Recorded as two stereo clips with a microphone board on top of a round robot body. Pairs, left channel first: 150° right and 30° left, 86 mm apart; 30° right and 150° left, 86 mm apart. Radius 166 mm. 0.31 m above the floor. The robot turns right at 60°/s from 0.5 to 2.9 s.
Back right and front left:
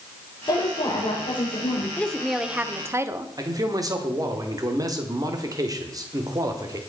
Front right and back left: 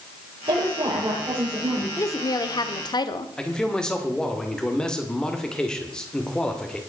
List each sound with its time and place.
0.5 s a woman speaking: 165° left, 9.5 m; by 1.9 s 115° right, 9.5 m
2.0 s a woman speaking: 80° right, 1.2 m; by 3.3 s 20° right, 1.2 m
3.4 s a man speaking: 50° left, 2.0 m